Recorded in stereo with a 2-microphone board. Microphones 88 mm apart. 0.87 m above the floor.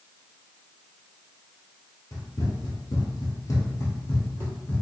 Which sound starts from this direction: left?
Running footsteps, at 2.1 s.